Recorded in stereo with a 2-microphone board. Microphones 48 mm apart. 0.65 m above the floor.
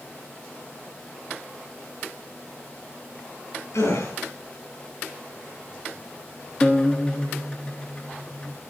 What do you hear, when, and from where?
3.7 s a gasp: 85° left, 4 m
6.6 s a guitar: 20° left (ahead or behind), 1.2 m